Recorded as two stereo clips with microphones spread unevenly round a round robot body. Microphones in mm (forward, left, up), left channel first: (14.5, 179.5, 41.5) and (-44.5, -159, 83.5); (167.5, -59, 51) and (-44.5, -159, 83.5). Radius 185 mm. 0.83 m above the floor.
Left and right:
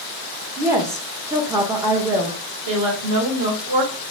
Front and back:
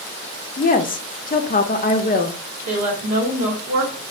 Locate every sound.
0.6 s a woman speaking: 15° right, 0.5 m
2.7 s a woman speaking: 135° right, 1.1 m